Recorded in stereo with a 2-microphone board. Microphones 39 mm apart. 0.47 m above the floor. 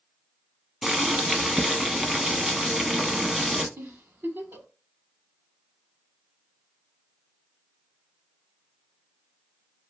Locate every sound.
0.8 s boiling: 10° right (ahead or behind), 0.5 m
3.8 s a giggle: 70° right (ahead or behind), 0.7 m